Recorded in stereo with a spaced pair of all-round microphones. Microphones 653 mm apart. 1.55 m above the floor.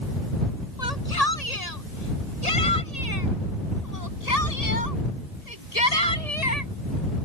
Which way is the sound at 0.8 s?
70° left (ahead or behind).